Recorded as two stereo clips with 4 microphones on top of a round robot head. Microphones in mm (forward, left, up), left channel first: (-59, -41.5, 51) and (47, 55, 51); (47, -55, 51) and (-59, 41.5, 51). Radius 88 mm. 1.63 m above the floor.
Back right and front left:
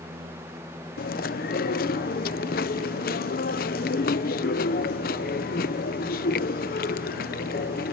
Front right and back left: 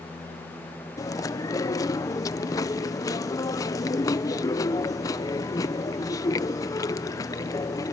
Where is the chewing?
110° right.